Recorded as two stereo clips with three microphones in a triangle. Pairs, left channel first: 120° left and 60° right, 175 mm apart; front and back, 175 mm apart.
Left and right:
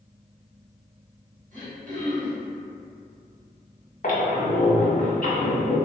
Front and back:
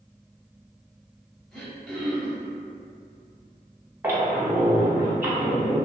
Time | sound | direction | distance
1.5 | throat clearing | 85° right | 1.0 m
4.0 | a squeak | 105° left | 0.6 m